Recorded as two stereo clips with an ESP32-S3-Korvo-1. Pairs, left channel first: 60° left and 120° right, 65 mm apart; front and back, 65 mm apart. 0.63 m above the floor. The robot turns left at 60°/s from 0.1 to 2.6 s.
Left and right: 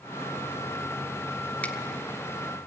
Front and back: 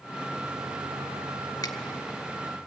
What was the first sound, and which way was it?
A finger snap, straight ahead.